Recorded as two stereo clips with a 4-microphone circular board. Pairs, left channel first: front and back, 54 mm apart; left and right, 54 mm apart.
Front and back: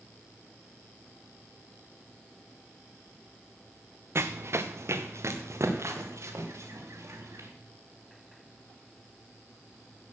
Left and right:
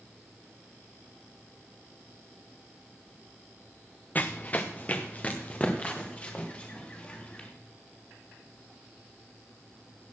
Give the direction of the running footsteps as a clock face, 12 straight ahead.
7 o'clock.